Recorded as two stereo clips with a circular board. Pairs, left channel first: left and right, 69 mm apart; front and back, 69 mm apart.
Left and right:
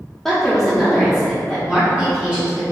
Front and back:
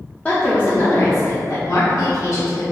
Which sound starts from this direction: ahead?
A woman speaking, at 0.2 s.